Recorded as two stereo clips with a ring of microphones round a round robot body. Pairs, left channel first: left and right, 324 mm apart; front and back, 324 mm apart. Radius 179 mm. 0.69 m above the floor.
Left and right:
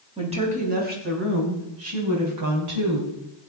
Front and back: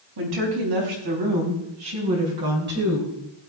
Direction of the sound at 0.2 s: 160° right.